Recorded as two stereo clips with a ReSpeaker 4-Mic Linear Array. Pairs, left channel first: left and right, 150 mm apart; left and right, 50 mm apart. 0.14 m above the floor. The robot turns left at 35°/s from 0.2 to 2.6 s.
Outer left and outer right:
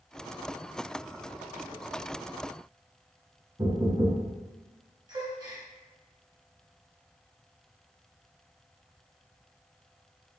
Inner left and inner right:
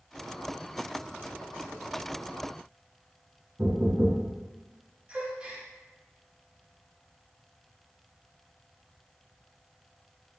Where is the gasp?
30° right (ahead or behind), 1.3 m.